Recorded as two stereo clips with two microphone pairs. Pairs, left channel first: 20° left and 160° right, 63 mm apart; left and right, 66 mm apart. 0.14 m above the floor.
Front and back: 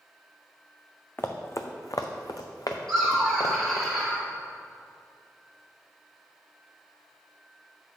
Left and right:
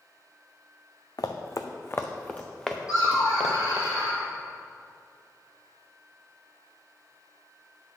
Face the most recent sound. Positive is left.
turn(degrees=105)